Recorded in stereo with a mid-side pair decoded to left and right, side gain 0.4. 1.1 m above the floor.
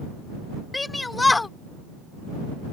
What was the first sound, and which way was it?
A shout, 20° left.